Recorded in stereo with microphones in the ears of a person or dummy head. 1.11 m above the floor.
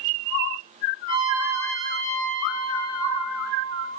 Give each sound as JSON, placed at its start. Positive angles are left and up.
{"t": 1.1, "sound": "a trumpet", "side_deg": -30, "distance_m": 9.0}